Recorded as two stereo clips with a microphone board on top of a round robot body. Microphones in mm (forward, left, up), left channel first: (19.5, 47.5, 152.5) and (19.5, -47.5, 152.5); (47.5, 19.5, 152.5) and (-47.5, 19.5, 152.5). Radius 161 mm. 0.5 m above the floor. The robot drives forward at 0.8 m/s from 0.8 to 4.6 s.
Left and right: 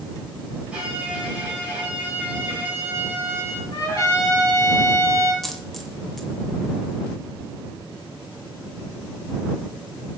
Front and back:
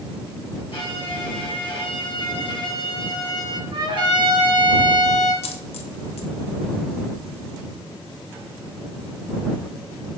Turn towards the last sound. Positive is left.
turn(degrees=0)